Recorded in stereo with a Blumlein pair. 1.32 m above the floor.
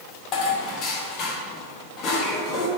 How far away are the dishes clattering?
About 1.6 m.